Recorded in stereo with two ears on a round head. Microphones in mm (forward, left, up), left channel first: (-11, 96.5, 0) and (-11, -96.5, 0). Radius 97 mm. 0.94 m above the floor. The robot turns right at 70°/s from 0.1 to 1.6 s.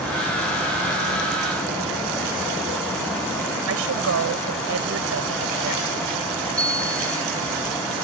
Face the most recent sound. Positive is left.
turn(degrees=5)  # may be behind; listen again after turning